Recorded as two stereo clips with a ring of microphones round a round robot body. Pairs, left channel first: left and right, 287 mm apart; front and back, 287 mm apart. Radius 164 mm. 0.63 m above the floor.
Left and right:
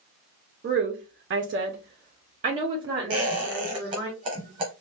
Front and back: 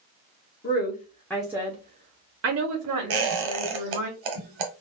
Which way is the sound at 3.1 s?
165° right.